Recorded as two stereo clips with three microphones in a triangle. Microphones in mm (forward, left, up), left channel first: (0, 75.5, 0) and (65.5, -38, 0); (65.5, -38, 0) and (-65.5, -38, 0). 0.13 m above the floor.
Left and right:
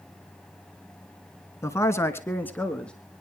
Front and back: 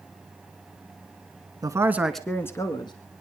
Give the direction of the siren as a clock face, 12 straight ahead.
I don't hear a siren.